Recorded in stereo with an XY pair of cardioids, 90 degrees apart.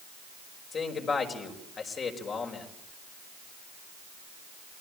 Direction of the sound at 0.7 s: 60° left.